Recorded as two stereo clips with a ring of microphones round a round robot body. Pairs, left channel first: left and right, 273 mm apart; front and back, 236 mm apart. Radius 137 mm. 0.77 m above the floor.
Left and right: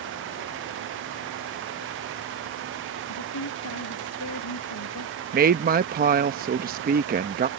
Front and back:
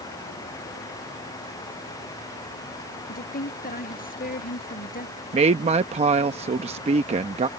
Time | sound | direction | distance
3.1 | a woman speaking | 55° left | ?
5.3 | a woman speaking | 130° right | ?